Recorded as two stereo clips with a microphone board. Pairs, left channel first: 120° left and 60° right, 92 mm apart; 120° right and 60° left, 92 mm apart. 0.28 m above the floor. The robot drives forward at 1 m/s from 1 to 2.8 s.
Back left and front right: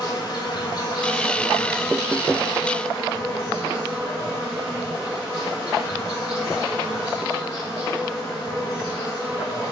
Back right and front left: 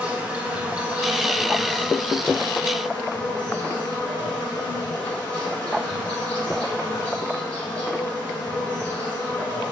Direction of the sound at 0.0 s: 135° left.